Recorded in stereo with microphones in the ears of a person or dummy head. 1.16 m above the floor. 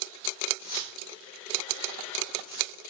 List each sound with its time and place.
0.6 s keys jangling: 45° left (ahead or behind), 3.5 m; by 2.8 s 40° left (ahead or behind), 2.5 m